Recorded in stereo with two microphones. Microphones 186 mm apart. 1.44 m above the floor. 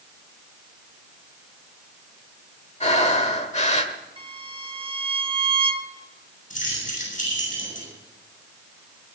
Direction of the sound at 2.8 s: 35° left (ahead or behind).